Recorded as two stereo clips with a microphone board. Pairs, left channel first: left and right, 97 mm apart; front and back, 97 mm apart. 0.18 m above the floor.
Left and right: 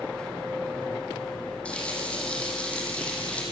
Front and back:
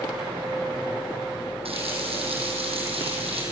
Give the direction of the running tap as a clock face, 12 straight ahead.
6 o'clock.